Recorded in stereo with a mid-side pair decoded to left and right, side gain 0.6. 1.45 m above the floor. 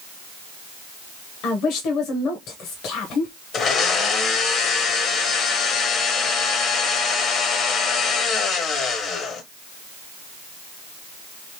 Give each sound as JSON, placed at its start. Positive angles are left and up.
{"t": 1.4, "sound": "a woman speaking", "azimuth_deg": 60, "distance_m": 1.0}
{"t": 3.5, "sound": "a blender", "azimuth_deg": 55, "distance_m": 0.9}